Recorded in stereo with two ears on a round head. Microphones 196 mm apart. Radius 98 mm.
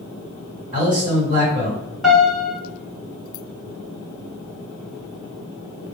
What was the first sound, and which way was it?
A man speaking, 40° right (ahead or behind).